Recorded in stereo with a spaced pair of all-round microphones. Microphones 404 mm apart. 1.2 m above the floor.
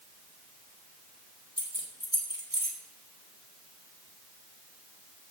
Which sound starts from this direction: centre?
Keys jangling, at 1.6 s.